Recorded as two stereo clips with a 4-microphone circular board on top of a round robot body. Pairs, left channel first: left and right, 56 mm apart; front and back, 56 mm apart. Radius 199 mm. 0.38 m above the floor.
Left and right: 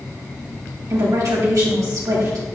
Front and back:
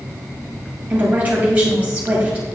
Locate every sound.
0.9 s a woman speaking: 115° right, 3.5 m